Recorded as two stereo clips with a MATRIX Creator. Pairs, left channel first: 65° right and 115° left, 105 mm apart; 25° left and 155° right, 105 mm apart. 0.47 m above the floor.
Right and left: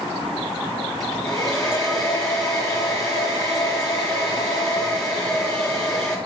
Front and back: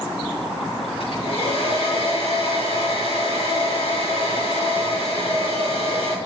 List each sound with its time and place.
1.0 s a hair dryer: 20° left, 4.5 m